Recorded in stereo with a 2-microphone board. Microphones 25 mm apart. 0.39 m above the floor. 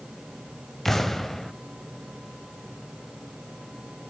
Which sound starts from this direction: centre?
An explosion, at 0.8 s.